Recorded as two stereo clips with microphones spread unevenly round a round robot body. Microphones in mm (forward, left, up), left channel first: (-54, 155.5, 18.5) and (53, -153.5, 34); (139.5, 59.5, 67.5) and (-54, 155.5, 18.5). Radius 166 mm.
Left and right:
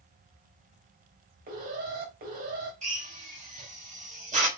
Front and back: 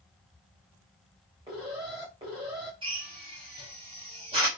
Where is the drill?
140° right, 4 m.